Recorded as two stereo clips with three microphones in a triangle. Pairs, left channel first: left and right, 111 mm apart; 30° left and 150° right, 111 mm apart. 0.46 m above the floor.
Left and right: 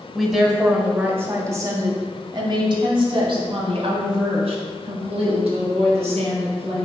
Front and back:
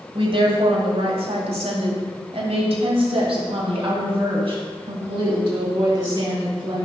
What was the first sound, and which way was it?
A woman speaking, straight behind.